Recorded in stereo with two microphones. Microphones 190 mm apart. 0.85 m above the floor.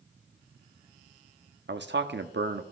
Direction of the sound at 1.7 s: 75° right (ahead or behind).